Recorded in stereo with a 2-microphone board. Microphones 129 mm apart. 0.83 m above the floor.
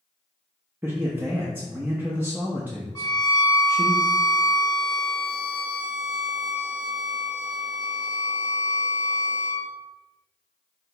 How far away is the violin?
About 0.7 m.